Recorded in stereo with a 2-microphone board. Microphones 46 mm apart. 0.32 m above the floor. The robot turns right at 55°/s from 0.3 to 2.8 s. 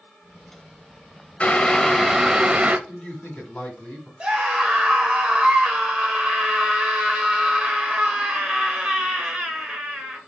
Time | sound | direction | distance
1.4 | boiling | 145° left | 0.5 m
2.9 | a man speaking | 30° left (ahead or behind) | 2.5 m
4.2 | a scream | 20° right (ahead or behind) | 1.3 m